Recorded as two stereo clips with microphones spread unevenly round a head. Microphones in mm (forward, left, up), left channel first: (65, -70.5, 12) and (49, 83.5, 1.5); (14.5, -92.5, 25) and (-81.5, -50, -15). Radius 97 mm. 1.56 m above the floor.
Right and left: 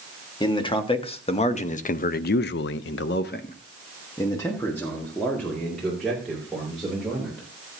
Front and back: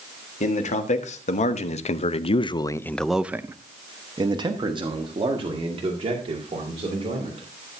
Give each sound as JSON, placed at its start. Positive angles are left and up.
{"t": 0.4, "sound": "a man speaking", "azimuth_deg": -25, "distance_m": 1.9}